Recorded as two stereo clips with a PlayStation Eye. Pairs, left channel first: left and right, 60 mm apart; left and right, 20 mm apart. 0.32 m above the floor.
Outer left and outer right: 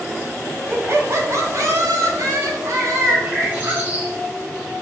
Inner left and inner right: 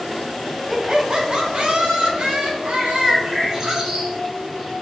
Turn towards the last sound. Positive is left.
turn(degrees=-30)  # may be behind; listen again after turning